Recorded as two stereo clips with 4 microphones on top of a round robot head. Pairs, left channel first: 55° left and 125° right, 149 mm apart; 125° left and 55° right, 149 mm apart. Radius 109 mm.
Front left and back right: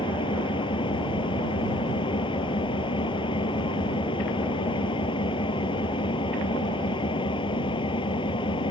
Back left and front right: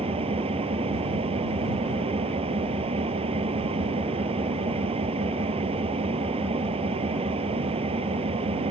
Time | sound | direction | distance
0.0 | an engine running | 5° right | ?